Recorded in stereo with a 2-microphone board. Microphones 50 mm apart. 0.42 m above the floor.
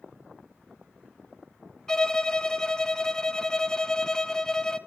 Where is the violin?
10° left (ahead or behind), 0.8 m.